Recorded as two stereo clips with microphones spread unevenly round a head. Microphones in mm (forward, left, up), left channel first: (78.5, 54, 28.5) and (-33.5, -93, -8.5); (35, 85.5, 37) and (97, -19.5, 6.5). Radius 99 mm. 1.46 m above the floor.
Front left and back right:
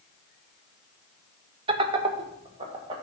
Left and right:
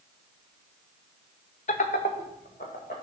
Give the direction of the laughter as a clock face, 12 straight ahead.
6 o'clock.